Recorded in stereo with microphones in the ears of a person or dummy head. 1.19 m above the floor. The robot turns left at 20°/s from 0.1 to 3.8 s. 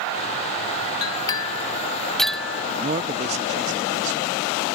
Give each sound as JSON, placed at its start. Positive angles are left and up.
{"t": 1.0, "sound": "a clink", "side_deg": 25}
{"t": 2.8, "sound": "a man speaking", "side_deg": -25}